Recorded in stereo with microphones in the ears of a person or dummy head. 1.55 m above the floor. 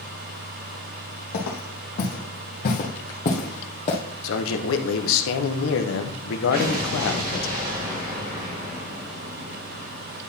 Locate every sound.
1.3 s footsteps: 60° left (ahead or behind), 3 m; by 4.0 s 35° left (ahead or behind), 2.5 m
4.2 s a man speaking: 75° left (ahead or behind), 1.1 m
6.5 s an explosion: 45° right (ahead or behind), 2.0 m